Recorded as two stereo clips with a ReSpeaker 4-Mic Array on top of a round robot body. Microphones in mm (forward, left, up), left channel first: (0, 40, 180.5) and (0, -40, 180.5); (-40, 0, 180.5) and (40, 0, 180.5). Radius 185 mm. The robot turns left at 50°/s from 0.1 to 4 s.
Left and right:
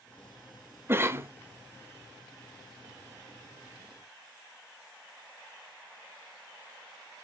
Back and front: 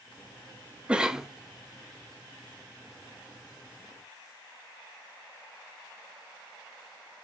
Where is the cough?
65° right, 0.9 m; by 1.3 s 85° right, 0.9 m.